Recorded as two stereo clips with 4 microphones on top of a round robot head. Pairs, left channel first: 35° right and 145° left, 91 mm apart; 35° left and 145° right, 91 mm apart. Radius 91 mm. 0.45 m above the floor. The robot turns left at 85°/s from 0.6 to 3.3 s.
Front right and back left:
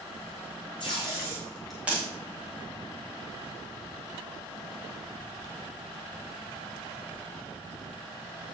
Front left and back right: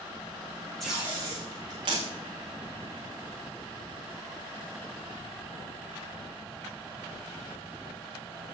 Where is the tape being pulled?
50° right, 8 m; by 2.0 s 155° right, 8 m.